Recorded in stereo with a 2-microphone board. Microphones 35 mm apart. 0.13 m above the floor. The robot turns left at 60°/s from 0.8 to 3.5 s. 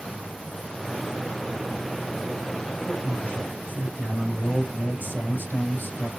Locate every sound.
2.6 s a man speaking: 150° left, 4 m; by 6.1 s 95° left, 4 m